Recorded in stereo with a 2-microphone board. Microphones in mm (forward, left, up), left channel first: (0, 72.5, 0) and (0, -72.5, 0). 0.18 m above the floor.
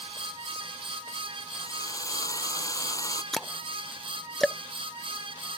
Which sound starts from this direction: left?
A drill, at 1.6 s.